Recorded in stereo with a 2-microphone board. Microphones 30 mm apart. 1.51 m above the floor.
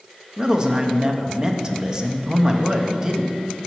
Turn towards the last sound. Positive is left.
turn(degrees=-20)  # may be behind; listen again after turning